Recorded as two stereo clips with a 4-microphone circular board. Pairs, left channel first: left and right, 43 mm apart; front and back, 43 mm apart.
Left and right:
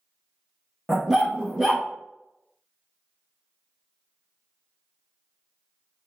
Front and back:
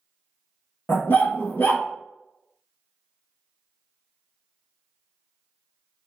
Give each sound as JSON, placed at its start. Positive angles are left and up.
{"t": 0.9, "sound": "a dog barking", "azimuth_deg": -10, "distance_m": 1.0}